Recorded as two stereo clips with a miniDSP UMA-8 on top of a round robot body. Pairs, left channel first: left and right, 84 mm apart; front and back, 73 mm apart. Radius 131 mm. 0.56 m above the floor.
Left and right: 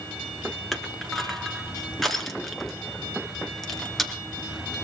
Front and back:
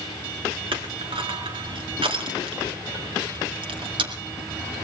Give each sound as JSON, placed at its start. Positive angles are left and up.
{"t": 0.7, "sound": "crushing", "azimuth_deg": 175, "distance_m": 2.0}